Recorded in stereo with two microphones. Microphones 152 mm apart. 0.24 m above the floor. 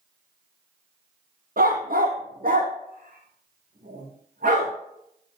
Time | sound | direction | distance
1.6 | a dog barking | 75° right (ahead or behind) | 2 m